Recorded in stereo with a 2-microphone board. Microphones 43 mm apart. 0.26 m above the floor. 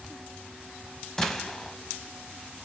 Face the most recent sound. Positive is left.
turn(degrees=10)  # may be behind; listen again after turning